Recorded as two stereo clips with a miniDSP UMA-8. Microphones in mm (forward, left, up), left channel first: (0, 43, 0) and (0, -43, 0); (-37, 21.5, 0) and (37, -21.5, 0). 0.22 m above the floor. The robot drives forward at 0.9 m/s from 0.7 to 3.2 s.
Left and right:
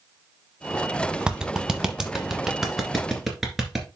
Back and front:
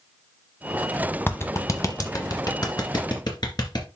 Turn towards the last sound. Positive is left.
turn(degrees=-175)